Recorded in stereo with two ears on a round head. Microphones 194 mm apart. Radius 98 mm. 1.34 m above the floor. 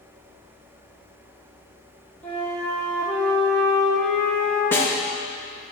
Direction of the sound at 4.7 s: 10° left (ahead or behind).